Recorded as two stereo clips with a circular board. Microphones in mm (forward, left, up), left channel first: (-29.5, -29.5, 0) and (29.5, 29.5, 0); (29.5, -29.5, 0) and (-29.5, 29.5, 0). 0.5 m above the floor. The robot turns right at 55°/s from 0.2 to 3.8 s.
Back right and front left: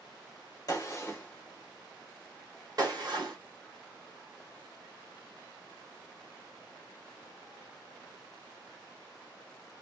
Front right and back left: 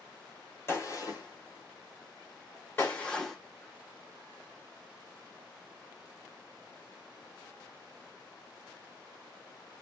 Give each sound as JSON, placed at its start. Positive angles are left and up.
{"t": 0.7, "sound": "a gunshot", "azimuth_deg": -100, "distance_m": 1.5}